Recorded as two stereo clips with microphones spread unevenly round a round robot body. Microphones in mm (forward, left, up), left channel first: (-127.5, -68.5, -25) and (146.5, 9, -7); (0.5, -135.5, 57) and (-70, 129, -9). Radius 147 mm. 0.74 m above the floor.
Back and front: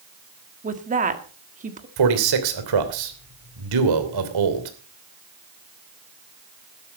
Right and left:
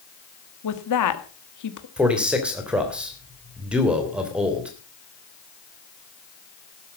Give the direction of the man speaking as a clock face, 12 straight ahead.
11 o'clock.